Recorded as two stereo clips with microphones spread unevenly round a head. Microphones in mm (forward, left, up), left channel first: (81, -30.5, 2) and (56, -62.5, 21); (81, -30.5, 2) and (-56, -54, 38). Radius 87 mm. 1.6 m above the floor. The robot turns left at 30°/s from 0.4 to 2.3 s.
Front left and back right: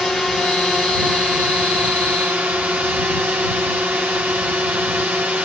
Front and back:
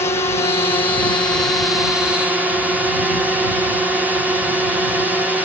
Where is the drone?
25° right; by 5.5 s 80° right.